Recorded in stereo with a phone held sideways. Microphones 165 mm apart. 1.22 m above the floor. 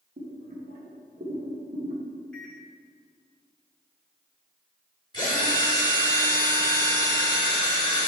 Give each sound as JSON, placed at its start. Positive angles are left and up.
{"t": 0.2, "sound": "boiling", "side_deg": -55, "distance_m": 1.4}
{"t": 2.3, "sound": "a microwave", "side_deg": 5, "distance_m": 1.5}
{"t": 5.1, "sound": "a drill", "side_deg": 25, "distance_m": 1.8}